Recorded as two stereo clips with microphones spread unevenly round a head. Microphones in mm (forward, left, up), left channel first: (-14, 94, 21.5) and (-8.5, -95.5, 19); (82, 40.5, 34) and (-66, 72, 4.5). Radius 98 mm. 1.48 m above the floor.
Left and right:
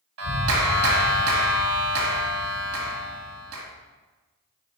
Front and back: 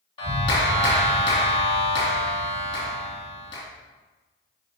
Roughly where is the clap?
Right.